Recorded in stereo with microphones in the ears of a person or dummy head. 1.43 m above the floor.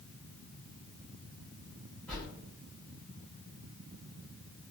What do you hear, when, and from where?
2.1 s a whoosh: 5° left (ahead or behind), 1.3 m